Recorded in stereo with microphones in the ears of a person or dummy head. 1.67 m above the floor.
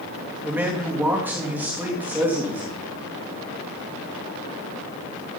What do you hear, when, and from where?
0.4 s a man speaking: 5° right (ahead or behind), 3 m